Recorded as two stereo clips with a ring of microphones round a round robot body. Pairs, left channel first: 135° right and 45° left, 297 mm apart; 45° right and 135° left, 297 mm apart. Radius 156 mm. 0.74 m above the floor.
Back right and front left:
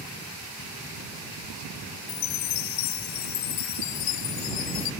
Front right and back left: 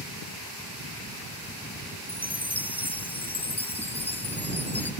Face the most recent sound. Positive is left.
turn(degrees=-130)